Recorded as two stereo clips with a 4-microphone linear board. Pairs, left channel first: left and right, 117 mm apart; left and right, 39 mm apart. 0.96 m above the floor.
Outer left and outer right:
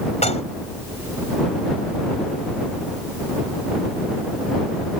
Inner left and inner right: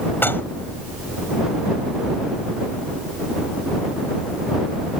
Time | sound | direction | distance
0.2 | dishes clattering | 70° left (ahead or behind) | ?